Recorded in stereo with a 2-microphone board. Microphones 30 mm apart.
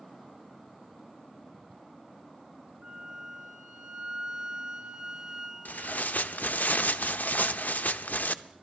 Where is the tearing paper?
75° left (ahead or behind), 0.6 m.